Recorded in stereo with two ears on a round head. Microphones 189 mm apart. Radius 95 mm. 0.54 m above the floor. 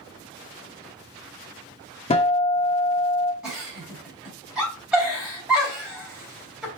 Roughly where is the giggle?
Centre.